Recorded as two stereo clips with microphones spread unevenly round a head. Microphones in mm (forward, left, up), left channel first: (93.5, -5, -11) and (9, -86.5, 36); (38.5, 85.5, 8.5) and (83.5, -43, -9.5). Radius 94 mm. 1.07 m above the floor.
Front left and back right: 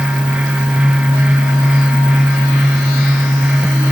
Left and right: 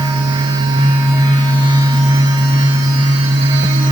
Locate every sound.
Only background noise.